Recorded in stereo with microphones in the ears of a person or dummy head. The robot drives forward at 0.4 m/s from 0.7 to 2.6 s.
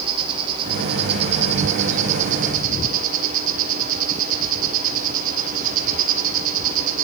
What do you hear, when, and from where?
0.0 s an insect: 35° right (ahead or behind), 2.0 m; by 7.0 s 50° right (ahead or behind), 1.5 m